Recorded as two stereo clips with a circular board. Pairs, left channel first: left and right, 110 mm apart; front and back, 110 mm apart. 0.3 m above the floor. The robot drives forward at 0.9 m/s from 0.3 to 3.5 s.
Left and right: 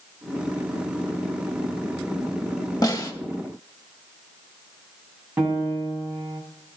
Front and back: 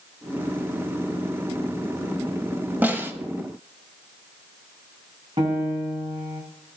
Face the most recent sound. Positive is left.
turn(degrees=-170)